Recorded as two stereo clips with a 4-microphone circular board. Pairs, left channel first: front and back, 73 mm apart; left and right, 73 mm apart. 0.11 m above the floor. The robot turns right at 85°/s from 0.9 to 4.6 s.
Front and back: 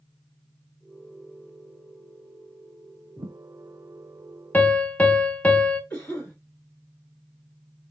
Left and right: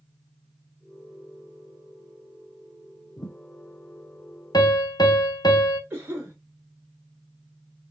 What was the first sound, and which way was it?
A thud, 100° left.